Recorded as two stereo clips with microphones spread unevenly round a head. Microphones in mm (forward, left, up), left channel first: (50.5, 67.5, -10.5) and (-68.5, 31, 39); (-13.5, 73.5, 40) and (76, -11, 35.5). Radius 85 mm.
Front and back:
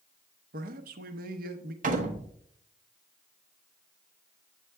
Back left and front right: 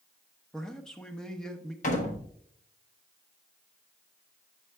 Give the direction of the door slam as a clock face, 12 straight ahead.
6 o'clock.